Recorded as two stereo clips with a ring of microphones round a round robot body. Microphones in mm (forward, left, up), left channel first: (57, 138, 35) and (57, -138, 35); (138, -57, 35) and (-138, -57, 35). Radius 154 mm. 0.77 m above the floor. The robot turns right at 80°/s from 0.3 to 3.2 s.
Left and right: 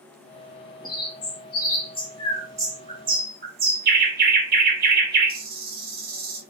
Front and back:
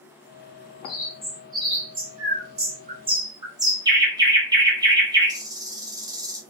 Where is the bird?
60° left, 0.8 m; by 6.4 s 115° right, 0.8 m.